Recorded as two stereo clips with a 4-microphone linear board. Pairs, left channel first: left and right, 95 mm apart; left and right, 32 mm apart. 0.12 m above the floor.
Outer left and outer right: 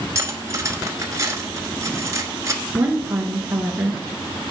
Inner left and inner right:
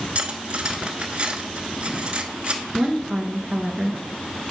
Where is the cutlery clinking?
35° right (ahead or behind), 1.1 m.